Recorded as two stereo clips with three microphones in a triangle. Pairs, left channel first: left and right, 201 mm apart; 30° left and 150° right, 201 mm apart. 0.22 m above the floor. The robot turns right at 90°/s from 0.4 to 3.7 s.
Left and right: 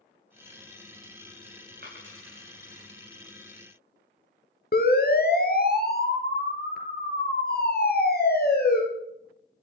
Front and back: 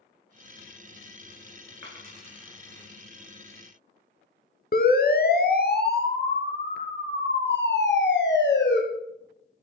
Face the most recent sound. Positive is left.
turn(degrees=55)